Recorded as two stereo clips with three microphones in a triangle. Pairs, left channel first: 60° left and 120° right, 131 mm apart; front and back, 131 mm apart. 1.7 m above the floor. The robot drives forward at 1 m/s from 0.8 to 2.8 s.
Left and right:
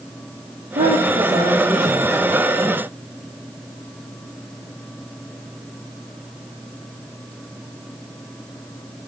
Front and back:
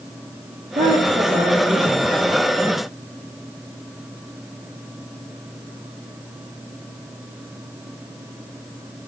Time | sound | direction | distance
0.8 | a woman speaking | 145° right | 4 m